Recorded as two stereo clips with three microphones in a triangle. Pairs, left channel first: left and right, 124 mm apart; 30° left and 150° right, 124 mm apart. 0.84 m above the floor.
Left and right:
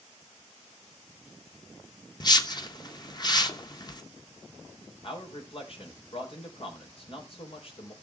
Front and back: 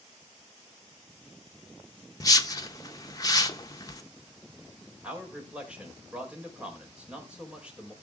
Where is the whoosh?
65° left, 1.0 m.